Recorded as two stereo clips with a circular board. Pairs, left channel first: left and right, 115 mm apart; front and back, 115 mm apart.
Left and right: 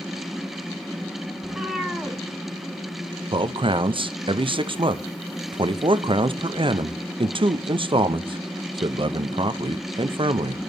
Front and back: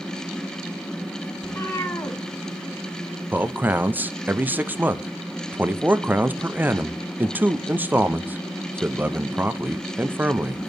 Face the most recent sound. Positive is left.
turn(degrees=-110)